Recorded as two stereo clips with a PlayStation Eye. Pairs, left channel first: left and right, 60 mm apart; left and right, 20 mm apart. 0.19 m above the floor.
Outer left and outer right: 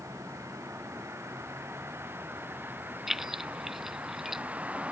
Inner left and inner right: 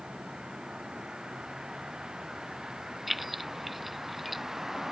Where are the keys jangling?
5° right (ahead or behind).